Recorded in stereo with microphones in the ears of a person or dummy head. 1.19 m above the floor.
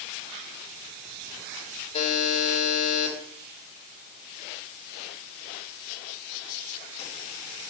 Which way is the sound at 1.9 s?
35° left (ahead or behind).